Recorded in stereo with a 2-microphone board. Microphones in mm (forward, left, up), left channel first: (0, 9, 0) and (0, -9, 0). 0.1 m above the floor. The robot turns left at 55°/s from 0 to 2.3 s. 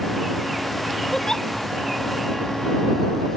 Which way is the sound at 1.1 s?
30° left (ahead or behind).